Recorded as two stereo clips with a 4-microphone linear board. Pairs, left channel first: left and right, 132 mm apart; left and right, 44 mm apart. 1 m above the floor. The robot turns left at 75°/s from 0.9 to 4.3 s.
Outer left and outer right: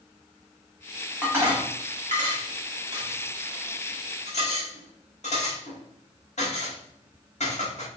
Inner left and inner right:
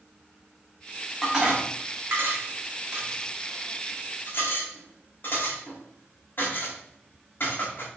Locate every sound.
1.2 s dishes clattering: 5° right (ahead or behind), 1.6 m; by 7.9 s 60° left (ahead or behind), 1.6 m